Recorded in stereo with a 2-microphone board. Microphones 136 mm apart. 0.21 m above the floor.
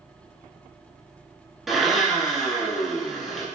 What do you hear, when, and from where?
1.7 s a blender: centre (ahead or behind), 1.2 m